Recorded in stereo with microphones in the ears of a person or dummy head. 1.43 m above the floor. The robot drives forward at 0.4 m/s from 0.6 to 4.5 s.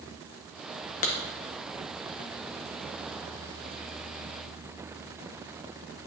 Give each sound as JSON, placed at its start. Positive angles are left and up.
{"t": 1.0, "sound": "a clap", "side_deg": 45, "distance_m": 0.9}